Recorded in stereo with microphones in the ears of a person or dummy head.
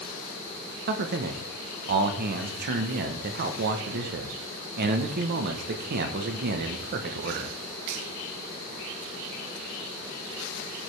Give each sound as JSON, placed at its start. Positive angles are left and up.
{"t": 0.9, "sound": "a man speaking", "side_deg": -55, "distance_m": 0.9}